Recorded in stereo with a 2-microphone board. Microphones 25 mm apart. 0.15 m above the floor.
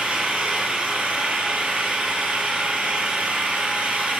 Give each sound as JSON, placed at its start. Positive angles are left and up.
{"t": 0.0, "sound": "an engine running", "side_deg": -60, "distance_m": 2.5}